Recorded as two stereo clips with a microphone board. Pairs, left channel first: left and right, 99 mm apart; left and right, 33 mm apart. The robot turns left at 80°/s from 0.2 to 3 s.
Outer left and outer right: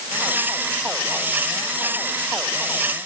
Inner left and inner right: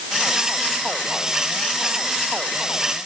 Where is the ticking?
I don't hear ticking.